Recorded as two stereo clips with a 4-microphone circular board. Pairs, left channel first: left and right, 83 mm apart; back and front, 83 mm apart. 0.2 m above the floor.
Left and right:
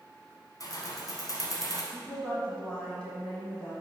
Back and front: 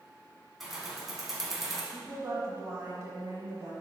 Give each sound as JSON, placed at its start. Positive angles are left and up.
{"t": 0.6, "sound": "keys jangling", "azimuth_deg": 85, "distance_m": 1.1}
{"t": 1.9, "sound": "a woman speaking", "azimuth_deg": 20, "distance_m": 1.4}